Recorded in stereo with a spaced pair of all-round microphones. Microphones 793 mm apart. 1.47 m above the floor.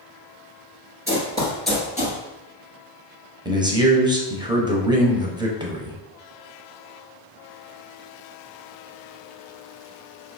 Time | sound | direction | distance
1.1 | running footsteps | 15° right (ahead or behind) | 1.7 m
3.5 | a man speaking | 5° right (ahead or behind) | 0.6 m